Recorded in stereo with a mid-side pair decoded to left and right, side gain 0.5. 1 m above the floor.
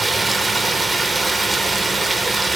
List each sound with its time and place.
0.0 s running water: 15° right, 1.9 m